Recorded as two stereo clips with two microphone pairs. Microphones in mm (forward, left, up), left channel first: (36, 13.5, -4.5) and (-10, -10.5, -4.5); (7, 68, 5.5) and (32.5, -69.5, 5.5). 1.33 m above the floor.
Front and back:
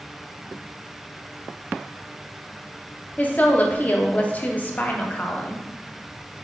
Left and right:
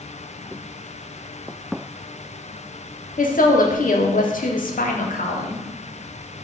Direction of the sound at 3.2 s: 85° left.